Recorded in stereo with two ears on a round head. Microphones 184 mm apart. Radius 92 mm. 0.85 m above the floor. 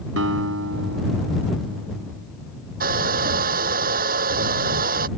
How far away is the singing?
No singing in this recording.